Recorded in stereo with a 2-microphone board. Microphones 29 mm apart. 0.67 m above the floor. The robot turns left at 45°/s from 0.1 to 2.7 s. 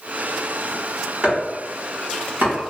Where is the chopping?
30° right (ahead or behind), 1.4 m; by 2.5 s 75° right (ahead or behind), 1.4 m.